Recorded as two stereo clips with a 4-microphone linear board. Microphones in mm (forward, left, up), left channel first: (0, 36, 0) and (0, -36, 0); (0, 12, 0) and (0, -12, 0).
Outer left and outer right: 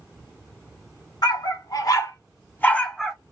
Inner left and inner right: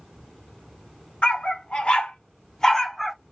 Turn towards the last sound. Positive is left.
turn(degrees=0)  # may be behind; listen again after turning